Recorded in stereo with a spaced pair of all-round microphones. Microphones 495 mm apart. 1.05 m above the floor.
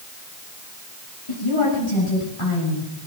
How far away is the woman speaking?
About 7.5 m.